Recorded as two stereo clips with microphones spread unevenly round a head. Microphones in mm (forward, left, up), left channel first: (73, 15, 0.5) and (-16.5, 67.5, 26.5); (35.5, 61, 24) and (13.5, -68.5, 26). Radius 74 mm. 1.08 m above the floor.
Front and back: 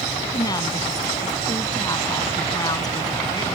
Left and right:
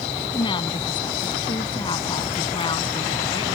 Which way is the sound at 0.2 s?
25° left.